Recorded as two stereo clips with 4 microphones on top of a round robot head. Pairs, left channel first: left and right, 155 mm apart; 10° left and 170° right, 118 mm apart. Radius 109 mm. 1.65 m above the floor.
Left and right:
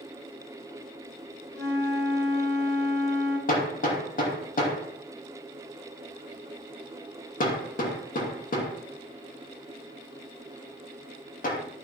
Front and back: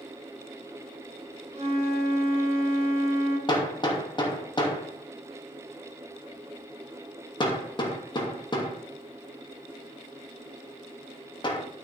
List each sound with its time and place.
1.5 s a flute: 150° left, 3.5 m
3.5 s hammering: 60° left, 3 m